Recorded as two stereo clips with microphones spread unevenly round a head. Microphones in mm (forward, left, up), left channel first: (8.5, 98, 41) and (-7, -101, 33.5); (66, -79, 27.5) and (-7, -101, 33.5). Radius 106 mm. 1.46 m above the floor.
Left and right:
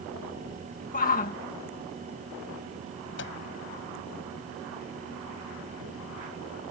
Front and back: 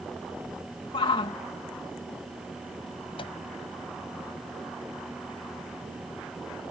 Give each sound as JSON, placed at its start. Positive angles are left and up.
{"t": 0.9, "sound": "a shout", "azimuth_deg": 35}
{"t": 3.2, "sound": "a microwave", "azimuth_deg": 55}